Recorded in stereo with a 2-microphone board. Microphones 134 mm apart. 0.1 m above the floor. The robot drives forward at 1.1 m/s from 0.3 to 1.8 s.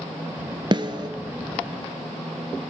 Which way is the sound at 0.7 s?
35° right (ahead or behind).